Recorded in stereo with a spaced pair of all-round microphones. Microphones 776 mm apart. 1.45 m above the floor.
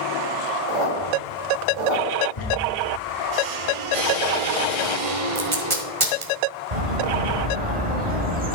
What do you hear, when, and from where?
0.7 s a squeak: 70° right (ahead or behind), 2.0 m
2.4 s a squeak: 45° left (ahead or behind), 2 m
5.3 s tape being pulled: 40° right (ahead or behind), 1.5 m
6.7 s a bird: 55° right (ahead or behind), 2 m